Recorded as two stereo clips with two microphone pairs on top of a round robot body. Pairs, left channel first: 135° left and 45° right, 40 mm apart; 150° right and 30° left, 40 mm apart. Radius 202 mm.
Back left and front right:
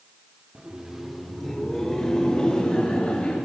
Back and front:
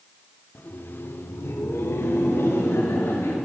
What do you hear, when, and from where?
0.6 s laughter: 115° right, 2 m; by 3.4 s 160° right, 4 m